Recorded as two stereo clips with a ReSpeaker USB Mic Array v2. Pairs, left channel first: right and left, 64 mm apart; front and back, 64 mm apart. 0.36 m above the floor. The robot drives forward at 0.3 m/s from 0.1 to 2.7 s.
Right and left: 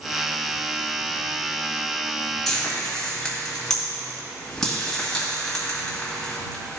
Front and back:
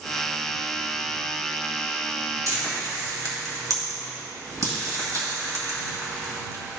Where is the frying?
175° right, 2.0 m.